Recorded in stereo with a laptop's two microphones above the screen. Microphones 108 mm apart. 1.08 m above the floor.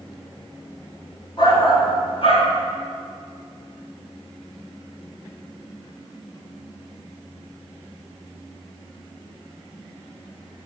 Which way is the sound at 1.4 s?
45° left (ahead or behind).